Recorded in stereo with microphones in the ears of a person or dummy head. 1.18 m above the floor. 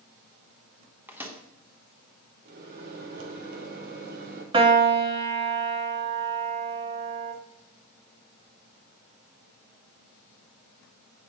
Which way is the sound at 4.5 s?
25° right (ahead or behind).